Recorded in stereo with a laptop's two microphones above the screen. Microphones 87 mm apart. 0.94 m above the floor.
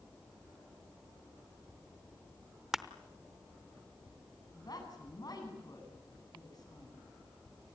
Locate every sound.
2.7 s crushing: 5° right (ahead or behind), 0.8 m
4.5 s a woman speaking: 50° left (ahead or behind), 9 m